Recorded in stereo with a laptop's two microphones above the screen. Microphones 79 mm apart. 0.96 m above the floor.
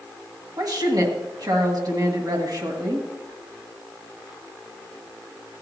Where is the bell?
I don't hear a bell.